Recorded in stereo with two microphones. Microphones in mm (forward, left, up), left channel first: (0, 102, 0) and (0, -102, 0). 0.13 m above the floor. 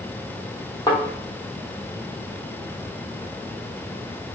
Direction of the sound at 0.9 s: 20° left (ahead or behind).